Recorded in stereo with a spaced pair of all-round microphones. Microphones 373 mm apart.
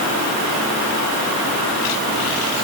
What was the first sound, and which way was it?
Only background noise.